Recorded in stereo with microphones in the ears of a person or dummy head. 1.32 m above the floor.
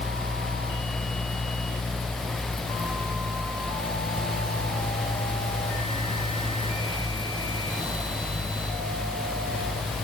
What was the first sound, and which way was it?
Only background noise.